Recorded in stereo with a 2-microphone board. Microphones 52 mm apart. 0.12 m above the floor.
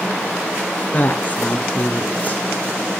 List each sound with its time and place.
0.9 s a woman speaking: 35° left (ahead or behind), 1.9 m